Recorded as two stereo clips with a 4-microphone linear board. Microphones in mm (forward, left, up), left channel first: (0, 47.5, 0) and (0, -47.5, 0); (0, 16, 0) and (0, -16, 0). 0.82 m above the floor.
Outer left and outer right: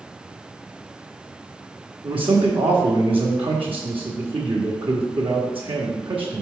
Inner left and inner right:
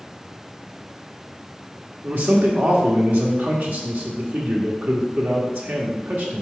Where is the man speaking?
65° right (ahead or behind), 1.2 m.